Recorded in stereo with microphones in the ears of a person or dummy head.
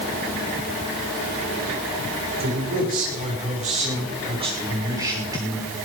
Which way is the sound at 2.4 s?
50° right (ahead or behind).